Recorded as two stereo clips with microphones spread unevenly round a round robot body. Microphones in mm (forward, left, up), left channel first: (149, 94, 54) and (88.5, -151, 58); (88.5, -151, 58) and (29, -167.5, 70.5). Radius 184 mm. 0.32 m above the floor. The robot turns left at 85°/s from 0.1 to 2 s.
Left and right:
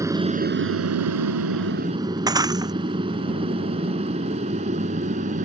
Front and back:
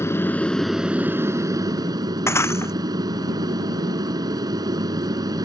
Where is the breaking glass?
30° right.